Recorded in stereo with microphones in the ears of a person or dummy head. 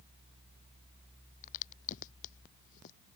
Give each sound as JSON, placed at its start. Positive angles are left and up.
{"t": 1.4, "sound": "a crack", "side_deg": 45}